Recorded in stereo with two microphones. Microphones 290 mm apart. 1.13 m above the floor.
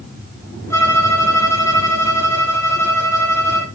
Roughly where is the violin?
Centre.